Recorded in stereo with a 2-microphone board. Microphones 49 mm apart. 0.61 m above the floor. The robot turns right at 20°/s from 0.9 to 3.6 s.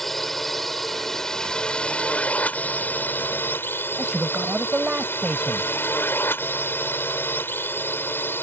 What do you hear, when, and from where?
0.0 s a drone: 5° left; by 8.4 s 60° left
4.0 s a man speaking: 20° right (ahead or behind)